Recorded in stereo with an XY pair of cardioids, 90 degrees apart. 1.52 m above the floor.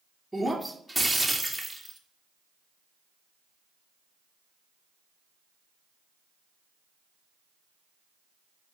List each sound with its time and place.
0.3 s breaking glass: straight ahead, 2 m